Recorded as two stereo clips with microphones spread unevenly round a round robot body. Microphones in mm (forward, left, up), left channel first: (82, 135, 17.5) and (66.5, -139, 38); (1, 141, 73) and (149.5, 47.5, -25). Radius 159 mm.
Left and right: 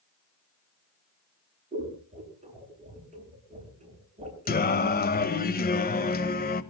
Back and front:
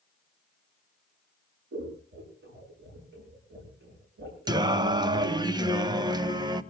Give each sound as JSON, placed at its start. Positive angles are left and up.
{"t": 1.7, "sound": "scissors", "azimuth_deg": -30, "distance_m": 7.0}
{"t": 4.5, "sound": "singing", "azimuth_deg": 30, "distance_m": 1.0}